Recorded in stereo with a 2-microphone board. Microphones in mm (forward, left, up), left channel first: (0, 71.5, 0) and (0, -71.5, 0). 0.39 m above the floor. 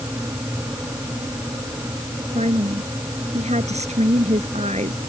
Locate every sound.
2.4 s a woman speaking: 50° right (ahead or behind)